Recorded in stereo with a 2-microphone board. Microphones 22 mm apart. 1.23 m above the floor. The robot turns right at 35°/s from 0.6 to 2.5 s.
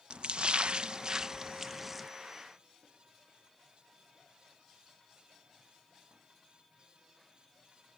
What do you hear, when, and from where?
0.1 s a splash: 55° right (ahead or behind); by 2.1 s 5° right (ahead or behind)